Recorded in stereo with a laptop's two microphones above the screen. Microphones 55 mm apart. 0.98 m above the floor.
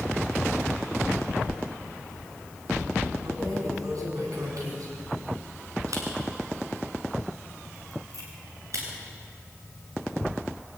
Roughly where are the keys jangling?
Right.